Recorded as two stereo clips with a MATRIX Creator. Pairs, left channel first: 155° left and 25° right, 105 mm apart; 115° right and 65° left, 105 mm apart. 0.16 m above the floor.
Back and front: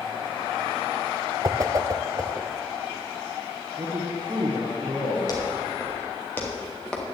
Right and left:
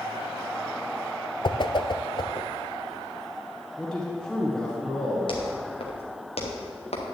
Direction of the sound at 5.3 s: 150° right.